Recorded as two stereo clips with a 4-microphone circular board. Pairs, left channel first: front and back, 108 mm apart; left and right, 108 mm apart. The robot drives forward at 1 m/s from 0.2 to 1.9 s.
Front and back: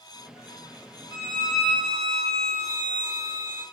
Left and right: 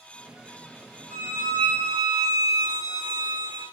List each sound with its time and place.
1.1 s a violin: 160° left, 1.5 m; by 3.6 s 170° left, 2 m